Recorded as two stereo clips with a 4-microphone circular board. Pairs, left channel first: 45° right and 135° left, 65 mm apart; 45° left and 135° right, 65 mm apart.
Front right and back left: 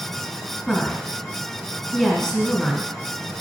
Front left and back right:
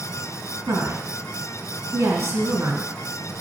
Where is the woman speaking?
120° right, 1.5 m.